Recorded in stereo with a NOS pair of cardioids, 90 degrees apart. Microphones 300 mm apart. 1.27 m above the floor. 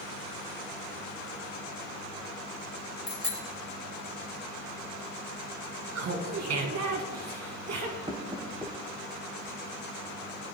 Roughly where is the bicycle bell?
Ahead left.